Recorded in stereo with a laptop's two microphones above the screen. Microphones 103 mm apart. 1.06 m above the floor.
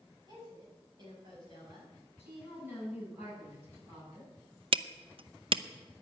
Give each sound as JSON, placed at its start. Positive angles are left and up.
{"t": 0.3, "sound": "a woman speaking", "side_deg": -45, "distance_m": 7.5}
{"t": 2.2, "sound": "a woman speaking", "side_deg": -20, "distance_m": 9.0}
{"t": 4.7, "sound": "hammering", "side_deg": -60, "distance_m": 0.6}